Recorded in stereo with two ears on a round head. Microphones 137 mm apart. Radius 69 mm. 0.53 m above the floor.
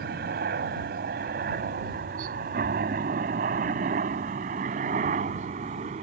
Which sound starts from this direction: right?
A helicopter, at 0.0 s.